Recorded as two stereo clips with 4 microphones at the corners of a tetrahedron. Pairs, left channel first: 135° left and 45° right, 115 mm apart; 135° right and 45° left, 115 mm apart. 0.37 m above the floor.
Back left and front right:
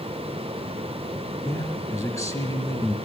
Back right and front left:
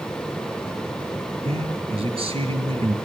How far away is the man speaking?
About 3 m.